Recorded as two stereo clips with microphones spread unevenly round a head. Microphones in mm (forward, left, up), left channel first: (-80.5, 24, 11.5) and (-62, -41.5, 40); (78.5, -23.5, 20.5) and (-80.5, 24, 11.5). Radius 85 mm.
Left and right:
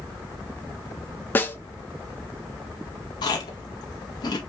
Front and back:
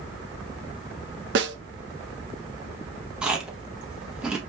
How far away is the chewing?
About 0.7 m.